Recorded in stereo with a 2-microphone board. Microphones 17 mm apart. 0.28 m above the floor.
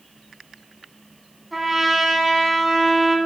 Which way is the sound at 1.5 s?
15° right (ahead or behind).